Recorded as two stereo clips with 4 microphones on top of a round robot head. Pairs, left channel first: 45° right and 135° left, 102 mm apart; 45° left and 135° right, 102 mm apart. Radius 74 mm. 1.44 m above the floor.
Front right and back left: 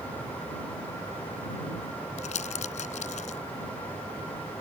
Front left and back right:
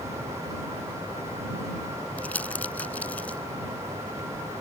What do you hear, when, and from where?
2.2 s crumpling: 30° right